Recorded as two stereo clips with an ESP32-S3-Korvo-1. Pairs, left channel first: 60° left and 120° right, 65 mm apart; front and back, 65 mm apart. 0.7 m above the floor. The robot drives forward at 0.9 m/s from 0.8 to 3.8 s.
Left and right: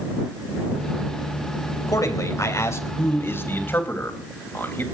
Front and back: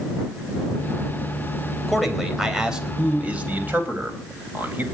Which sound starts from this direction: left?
A man speaking, at 1.9 s.